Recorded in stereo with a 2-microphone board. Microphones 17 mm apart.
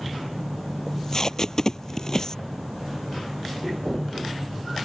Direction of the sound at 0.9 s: 35° left (ahead or behind).